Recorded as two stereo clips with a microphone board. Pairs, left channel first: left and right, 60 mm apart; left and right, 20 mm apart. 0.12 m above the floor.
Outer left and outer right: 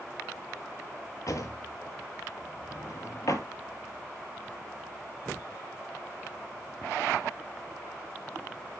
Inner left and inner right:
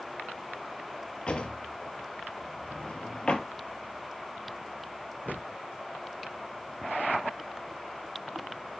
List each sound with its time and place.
1.3 s a drawer: 65° left (ahead or behind), 0.8 m